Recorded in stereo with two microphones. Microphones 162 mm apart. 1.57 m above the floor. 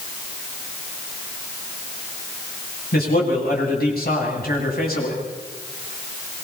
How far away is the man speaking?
About 10 m.